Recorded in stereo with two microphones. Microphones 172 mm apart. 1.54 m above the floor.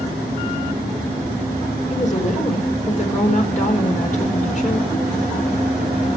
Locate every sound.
1.9 s a woman speaking: 45° left (ahead or behind), 4.5 m